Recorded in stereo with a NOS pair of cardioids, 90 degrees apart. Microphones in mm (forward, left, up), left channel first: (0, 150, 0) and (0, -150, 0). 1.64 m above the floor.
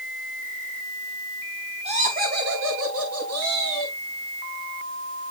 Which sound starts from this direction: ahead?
Laughter, at 1.9 s.